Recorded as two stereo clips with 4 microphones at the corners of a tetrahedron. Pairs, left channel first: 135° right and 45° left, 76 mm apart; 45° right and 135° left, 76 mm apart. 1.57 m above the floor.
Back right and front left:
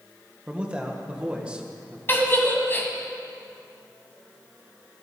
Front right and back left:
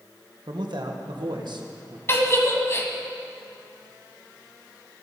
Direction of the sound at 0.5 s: 120° left.